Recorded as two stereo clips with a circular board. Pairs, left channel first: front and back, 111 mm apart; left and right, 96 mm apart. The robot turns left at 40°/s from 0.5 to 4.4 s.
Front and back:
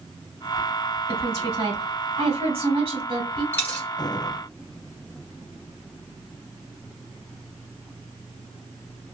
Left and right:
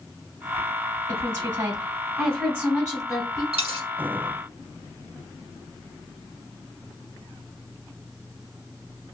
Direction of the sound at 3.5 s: 70° right.